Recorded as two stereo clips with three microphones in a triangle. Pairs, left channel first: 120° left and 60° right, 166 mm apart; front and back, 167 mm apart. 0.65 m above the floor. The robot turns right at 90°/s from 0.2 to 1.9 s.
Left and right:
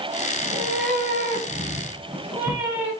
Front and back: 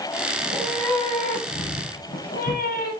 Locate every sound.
0.4 s a cat meowing: 120° right, 2 m; by 2.9 s 15° left, 2 m